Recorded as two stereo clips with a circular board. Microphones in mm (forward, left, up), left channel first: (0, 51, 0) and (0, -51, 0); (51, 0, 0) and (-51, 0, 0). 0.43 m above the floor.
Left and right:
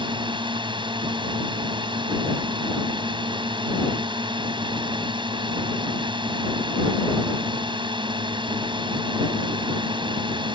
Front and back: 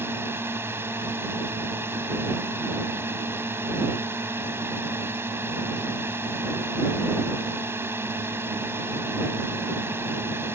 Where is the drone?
120° right.